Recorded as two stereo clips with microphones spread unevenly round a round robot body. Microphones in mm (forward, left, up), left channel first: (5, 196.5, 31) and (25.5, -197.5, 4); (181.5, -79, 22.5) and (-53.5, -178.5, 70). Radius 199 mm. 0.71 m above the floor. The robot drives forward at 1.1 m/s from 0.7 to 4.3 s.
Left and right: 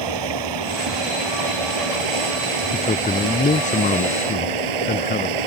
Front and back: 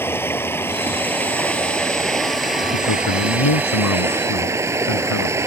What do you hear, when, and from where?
0.0 s running water: 60° right; by 5.5 s 80° right
2.7 s a man speaking: 20° left